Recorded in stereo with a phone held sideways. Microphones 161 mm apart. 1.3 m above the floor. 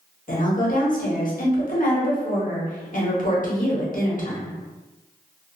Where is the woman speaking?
60° left (ahead or behind), 0.8 m.